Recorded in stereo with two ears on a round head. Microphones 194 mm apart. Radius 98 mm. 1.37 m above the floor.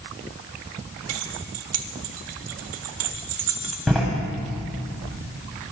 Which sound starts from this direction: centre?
A door slam, at 3.9 s.